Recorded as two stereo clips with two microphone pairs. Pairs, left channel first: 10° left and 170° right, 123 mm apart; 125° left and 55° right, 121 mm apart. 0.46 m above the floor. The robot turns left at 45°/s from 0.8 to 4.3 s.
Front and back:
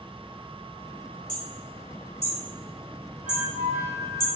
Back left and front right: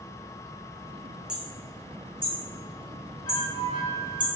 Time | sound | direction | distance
1.3 | hammering | 25° left | 2 m
3.2 | a flute | 90° right | 4 m